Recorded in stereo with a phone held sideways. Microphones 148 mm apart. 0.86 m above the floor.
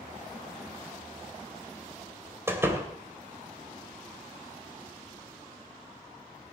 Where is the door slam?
15° right (ahead or behind), 2.5 m.